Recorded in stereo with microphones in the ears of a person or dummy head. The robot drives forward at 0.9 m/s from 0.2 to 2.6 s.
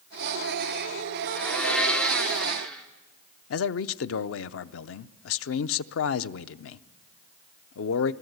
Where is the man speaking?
85° left, 0.6 m.